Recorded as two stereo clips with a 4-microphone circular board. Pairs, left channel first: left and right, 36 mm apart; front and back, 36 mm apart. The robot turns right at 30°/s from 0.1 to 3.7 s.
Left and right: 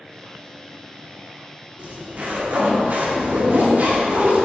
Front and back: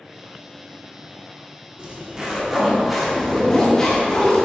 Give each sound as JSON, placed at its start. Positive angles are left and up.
{"t": 1.8, "sound": "a zipper", "azimuth_deg": -125, "distance_m": 1.8}